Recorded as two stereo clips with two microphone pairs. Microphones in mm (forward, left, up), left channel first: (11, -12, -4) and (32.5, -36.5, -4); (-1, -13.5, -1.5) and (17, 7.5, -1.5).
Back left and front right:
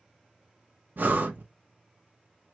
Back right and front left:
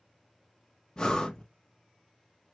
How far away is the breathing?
About 0.8 m.